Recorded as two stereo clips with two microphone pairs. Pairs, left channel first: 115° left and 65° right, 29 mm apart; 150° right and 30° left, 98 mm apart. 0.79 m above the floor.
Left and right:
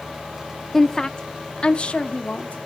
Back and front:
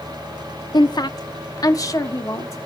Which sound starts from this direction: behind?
A woman speaking, at 0.7 s.